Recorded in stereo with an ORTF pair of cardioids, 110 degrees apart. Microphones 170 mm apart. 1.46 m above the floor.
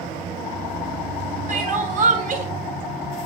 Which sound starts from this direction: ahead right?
Crying, at 1.5 s.